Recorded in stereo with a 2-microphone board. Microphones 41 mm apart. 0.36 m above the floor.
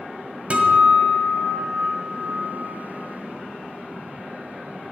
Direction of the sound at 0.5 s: 30° right (ahead or behind).